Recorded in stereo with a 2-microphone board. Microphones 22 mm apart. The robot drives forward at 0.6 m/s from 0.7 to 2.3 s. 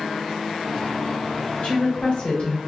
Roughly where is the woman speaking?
Left.